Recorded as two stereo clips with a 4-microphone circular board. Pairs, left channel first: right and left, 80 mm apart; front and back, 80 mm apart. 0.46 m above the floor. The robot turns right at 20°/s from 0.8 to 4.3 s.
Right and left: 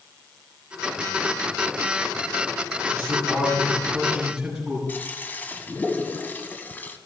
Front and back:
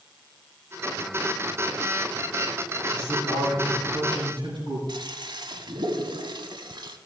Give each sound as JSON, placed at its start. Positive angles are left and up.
{"t": 2.9, "sound": "a man speaking", "azimuth_deg": 145, "distance_m": 6.0}
{"t": 4.9, "sound": "a toilet flushing", "azimuth_deg": -160, "distance_m": 1.0}